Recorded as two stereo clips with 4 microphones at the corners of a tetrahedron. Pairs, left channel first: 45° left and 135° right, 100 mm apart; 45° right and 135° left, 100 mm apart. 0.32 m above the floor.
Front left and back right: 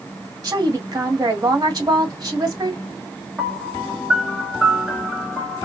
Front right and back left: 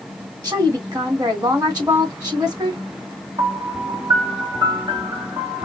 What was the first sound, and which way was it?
A woman speaking, 175° left.